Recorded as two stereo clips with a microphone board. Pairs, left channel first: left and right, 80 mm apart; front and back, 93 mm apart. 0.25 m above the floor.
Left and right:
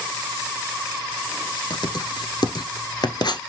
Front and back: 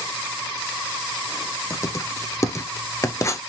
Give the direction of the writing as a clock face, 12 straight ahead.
10 o'clock.